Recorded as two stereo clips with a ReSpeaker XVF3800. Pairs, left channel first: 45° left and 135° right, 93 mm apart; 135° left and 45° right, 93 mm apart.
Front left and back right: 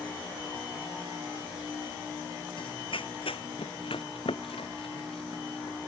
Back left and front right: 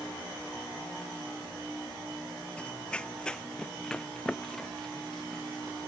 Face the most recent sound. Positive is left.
turn(degrees=50)